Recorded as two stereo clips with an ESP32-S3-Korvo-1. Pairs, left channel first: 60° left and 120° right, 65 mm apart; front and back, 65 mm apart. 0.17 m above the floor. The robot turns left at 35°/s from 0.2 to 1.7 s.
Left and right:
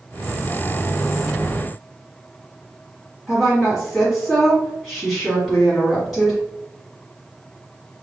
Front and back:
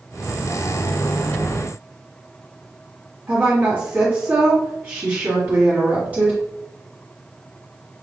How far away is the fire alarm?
No fire alarm in this recording.